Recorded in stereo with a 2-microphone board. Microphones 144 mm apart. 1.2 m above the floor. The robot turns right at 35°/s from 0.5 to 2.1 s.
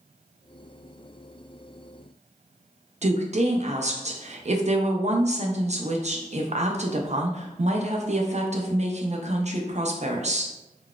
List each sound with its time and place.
3.0 s a woman speaking: 50° right (ahead or behind), 0.5 m